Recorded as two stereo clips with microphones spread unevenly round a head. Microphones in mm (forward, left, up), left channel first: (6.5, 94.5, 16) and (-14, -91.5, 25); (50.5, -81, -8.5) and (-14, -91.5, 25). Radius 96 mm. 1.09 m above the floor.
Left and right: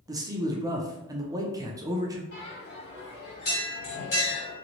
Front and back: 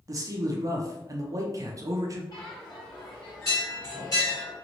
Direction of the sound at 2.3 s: 50° left.